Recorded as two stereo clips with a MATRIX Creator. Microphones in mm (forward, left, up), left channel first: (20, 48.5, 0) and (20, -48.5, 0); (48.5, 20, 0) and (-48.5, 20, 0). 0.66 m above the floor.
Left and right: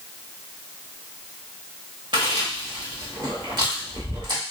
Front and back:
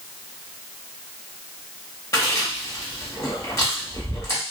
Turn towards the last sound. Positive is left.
turn(degrees=-55)